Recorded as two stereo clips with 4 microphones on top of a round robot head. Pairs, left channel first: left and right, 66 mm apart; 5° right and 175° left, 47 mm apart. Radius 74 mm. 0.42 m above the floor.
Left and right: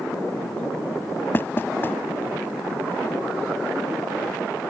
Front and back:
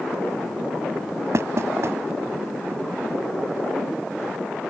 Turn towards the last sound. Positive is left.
turn(degrees=150)